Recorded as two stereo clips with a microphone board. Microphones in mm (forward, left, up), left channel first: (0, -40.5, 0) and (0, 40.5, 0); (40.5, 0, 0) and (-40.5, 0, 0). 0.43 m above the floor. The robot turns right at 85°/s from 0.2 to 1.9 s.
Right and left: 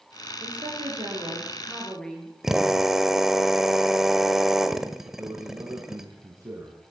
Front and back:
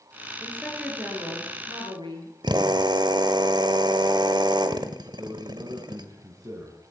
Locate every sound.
0.4 s a woman speaking: 60° left, 8 m; by 2.3 s 175° right, 8 m
2.4 s a drill: 175° left, 1.6 m
5.0 s a man speaking: 135° left, 4 m